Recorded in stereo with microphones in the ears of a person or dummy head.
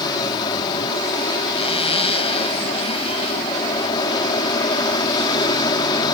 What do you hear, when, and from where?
0.0 s an aircraft: 25° left (ahead or behind)
1.6 s a zipper: 35° left (ahead or behind)